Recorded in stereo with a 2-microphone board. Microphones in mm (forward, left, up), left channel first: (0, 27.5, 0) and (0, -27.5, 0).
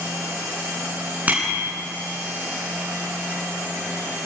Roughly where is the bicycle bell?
Right.